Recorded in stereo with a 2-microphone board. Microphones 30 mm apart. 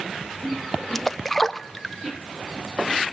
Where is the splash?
5° left (ahead or behind), 0.6 m.